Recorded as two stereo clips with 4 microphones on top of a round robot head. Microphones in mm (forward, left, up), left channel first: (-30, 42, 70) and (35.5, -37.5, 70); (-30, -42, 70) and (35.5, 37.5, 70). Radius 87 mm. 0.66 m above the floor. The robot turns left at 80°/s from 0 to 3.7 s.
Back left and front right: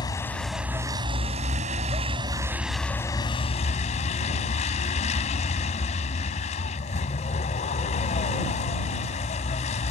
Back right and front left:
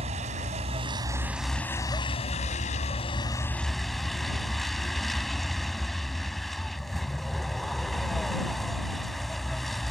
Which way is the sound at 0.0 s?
80° left.